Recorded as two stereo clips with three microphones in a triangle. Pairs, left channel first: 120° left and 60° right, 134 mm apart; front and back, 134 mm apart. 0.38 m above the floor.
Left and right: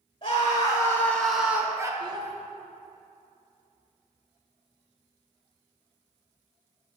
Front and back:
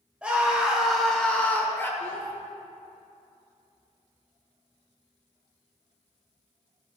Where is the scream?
100° left, 1.8 m; by 1.9 s 50° right, 1.4 m.